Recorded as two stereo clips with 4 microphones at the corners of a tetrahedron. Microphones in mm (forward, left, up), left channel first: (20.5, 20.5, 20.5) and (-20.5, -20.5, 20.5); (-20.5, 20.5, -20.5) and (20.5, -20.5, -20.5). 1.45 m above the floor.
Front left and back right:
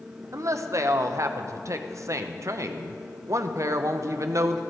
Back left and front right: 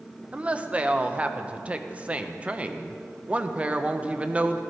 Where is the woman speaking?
110° right, 0.7 m.